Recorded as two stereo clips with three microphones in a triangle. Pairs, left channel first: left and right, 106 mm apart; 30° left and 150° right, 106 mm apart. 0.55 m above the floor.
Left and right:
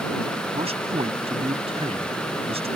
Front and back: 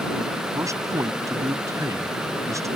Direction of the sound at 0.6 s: 95° right.